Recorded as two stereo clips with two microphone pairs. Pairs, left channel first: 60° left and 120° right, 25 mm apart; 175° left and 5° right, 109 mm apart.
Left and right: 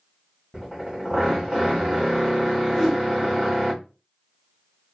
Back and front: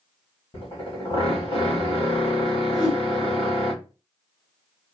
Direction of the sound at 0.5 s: 165° left.